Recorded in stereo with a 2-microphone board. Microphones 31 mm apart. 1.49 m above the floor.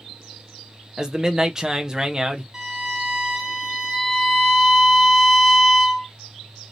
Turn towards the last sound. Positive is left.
turn(degrees=-10)  # may be behind; listen again after turning